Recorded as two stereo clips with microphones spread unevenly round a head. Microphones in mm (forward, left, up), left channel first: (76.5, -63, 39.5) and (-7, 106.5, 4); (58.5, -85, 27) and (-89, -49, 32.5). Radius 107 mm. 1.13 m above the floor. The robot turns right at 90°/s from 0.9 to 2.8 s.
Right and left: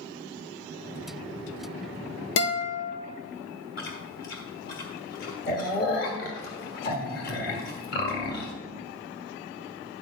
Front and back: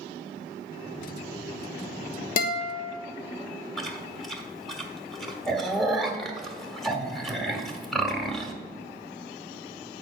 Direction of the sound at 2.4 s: 35° right.